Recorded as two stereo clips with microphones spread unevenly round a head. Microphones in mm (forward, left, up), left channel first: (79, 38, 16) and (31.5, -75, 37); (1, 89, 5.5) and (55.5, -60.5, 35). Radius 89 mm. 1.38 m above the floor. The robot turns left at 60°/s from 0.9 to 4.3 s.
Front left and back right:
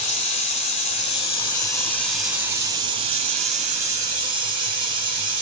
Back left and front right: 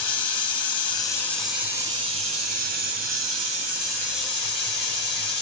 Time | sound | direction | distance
0.0 | running water | 45° left | 2.5 m